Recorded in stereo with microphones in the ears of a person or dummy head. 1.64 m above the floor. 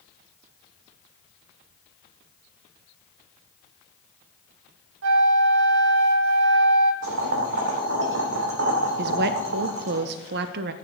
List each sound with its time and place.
5.0 s a flute: 70° right (ahead or behind), 0.9 m
7.0 s boiling: 70° right (ahead or behind), 3 m
9.0 s a woman speaking: 60° right (ahead or behind), 0.6 m